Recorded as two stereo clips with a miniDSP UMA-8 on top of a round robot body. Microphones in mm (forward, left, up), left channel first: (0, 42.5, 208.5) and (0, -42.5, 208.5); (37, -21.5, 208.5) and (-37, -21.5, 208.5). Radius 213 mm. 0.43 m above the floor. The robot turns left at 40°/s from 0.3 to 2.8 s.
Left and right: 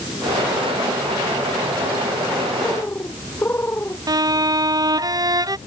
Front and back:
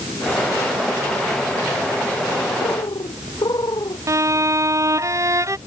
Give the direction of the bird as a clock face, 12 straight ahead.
11 o'clock.